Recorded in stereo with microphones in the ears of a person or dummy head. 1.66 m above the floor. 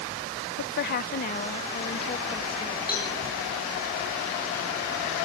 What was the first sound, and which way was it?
A woman speaking, 60° left (ahead or behind).